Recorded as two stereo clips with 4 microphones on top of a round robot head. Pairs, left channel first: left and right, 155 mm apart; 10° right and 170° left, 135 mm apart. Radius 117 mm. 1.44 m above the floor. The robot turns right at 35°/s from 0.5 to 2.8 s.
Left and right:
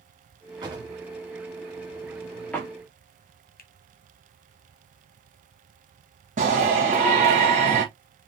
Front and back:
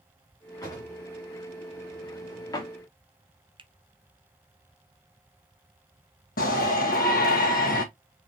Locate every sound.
0.6 s a drawer: 55° right, 1.0 m; by 2.7 s 20° left, 1.0 m
3.6 s a finger snap: 115° left, 0.9 m
6.4 s a shout: 40° right, 1.2 m